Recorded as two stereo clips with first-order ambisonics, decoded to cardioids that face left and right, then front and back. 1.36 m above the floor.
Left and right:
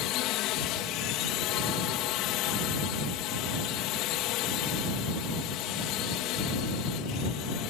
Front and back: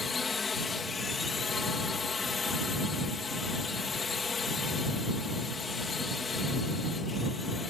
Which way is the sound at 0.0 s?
70° left.